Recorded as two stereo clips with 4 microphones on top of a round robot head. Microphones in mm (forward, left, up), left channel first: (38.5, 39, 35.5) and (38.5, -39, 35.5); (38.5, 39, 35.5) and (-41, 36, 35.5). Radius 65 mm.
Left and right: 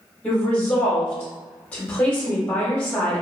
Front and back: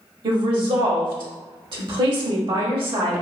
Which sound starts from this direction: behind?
A woman speaking, at 0.2 s.